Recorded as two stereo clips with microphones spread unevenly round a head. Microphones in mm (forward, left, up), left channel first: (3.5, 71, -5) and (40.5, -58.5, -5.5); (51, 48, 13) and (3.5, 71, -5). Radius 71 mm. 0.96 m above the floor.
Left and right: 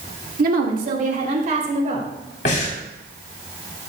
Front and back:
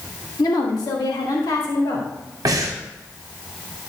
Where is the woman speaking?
65° right, 1.7 m; by 2.1 s 35° right, 3.5 m.